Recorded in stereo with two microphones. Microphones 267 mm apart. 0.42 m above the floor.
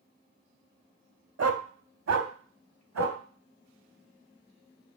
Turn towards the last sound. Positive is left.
turn(degrees=-80)